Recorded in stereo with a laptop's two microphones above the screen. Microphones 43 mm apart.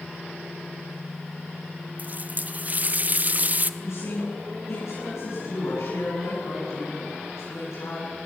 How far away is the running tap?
About 0.9 m.